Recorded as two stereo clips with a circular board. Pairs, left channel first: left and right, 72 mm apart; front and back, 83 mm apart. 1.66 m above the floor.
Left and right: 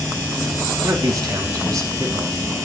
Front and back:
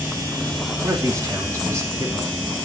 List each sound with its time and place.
0.8 s a man speaking: 125° right, 3 m